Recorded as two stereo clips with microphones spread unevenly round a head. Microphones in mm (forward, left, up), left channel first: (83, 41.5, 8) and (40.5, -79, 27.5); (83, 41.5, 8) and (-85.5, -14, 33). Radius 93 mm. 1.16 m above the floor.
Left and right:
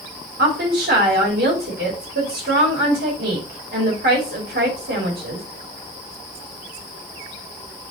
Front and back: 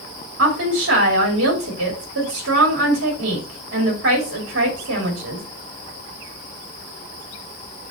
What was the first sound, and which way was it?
A woman speaking, 135° right.